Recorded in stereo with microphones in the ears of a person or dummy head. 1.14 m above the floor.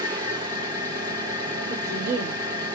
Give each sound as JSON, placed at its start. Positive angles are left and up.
{"t": 0.0, "sound": "an engine running", "side_deg": -15, "distance_m": 1.1}
{"t": 1.7, "sound": "a woman speaking", "side_deg": -55, "distance_m": 2.0}